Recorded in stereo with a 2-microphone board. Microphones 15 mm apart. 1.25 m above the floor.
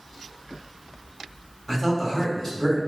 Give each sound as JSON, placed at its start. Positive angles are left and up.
{"t": 1.7, "sound": "a man speaking", "side_deg": 25, "distance_m": 1.5}